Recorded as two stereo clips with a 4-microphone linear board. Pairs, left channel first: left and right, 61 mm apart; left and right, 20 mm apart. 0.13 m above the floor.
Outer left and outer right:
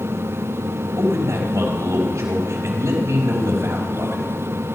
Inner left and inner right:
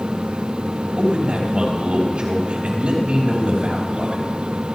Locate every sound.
1.0 s a man speaking: 60° right (ahead or behind), 5 m